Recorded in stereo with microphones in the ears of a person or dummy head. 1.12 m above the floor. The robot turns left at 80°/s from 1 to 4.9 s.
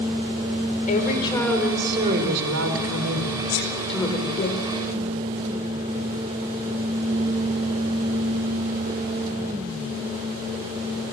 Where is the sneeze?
55° left (ahead or behind), 4 m; by 3.7 s 70° left (ahead or behind), 4 m.